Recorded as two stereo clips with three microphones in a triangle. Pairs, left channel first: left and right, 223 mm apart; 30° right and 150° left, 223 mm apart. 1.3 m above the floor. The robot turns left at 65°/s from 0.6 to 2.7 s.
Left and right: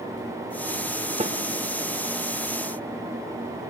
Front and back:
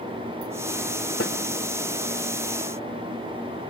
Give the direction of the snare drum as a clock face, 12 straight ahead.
1 o'clock.